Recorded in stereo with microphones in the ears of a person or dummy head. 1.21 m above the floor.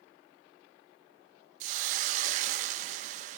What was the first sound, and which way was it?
A hiss, 40° right (ahead or behind).